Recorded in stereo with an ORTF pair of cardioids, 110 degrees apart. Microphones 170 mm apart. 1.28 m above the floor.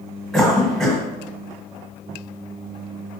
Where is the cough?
Straight ahead, 1.2 m.